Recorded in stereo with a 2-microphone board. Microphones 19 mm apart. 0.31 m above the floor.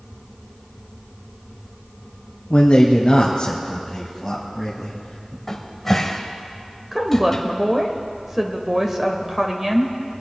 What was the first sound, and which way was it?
A man speaking, 55° left (ahead or behind).